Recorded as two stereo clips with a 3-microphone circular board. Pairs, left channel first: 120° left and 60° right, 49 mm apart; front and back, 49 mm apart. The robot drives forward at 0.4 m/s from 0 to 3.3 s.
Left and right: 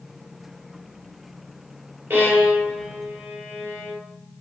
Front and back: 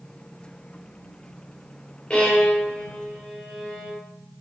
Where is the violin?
60° right, 2.5 m; by 4.0 s 75° right, 2 m.